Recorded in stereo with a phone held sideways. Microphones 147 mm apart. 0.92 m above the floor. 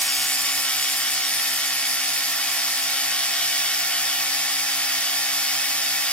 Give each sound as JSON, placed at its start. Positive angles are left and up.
{"t": 0.0, "sound": "a machine running", "side_deg": 10, "distance_m": 1.7}